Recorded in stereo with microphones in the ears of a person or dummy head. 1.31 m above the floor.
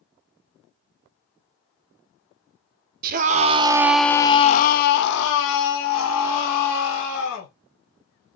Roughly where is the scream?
Right.